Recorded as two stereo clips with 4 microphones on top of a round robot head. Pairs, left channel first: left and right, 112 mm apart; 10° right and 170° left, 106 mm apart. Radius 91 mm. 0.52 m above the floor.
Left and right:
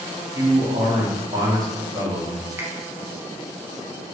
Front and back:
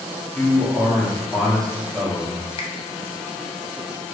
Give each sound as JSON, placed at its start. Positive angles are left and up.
{"t": 0.3, "sound": "a man speaking", "azimuth_deg": -90, "distance_m": 0.8}
{"t": 2.6, "sound": "a finger snap", "azimuth_deg": -20, "distance_m": 0.6}